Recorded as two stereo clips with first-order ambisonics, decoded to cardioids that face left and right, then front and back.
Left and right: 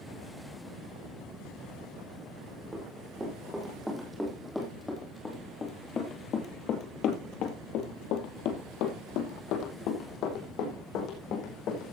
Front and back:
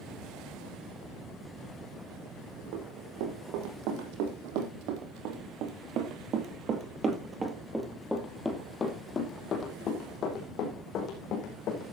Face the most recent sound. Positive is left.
turn(degrees=45)